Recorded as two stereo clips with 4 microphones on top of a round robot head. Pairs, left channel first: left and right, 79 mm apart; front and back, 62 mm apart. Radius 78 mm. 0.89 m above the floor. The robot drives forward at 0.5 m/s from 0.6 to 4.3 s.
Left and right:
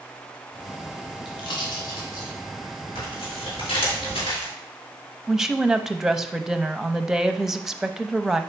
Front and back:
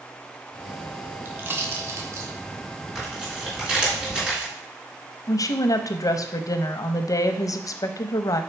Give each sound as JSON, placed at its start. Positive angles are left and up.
{"t": 1.2, "sound": "a pop", "azimuth_deg": 125, "distance_m": 1.2}
{"t": 3.0, "sound": "tearing paper", "azimuth_deg": 95, "distance_m": 3.5}
{"t": 5.3, "sound": "a woman speaking", "azimuth_deg": -5, "distance_m": 0.7}